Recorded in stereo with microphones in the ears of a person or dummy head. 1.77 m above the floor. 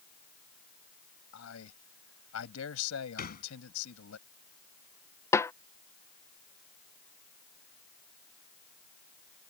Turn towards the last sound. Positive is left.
turn(degrees=20)  # may be behind; listen again after turning